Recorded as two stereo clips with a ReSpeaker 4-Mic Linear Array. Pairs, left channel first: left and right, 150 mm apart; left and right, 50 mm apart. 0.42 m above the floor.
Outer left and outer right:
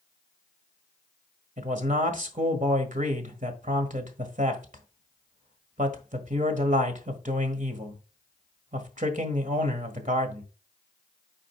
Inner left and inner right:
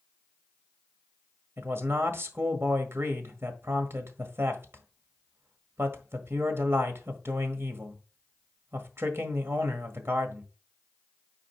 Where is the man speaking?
60° right (ahead or behind), 1.5 m.